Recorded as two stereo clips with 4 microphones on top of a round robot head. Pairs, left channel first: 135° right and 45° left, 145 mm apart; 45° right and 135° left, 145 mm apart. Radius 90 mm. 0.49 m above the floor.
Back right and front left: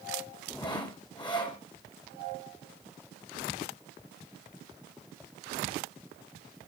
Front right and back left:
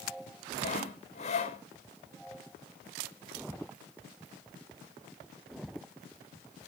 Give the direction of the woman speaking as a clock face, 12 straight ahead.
No woman speaking in this recording.